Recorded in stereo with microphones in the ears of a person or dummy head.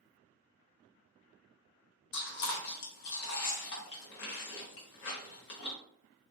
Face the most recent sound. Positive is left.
turn(degrees=60)  # may be behind; listen again after turning